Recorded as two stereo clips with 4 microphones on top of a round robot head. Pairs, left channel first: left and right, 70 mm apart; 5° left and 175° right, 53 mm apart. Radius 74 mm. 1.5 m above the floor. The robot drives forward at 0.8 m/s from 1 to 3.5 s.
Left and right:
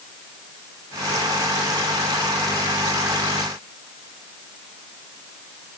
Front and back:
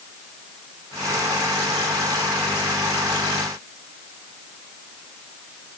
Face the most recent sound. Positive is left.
No sound to turn to.